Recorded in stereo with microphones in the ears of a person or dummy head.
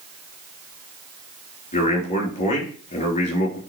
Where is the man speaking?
40° left (ahead or behind), 3.5 m.